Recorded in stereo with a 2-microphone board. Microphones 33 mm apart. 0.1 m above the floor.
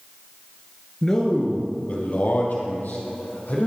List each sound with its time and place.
1.0 s a man speaking: 15° left (ahead or behind), 1.5 m; by 3.7 s 70° left (ahead or behind), 4.5 m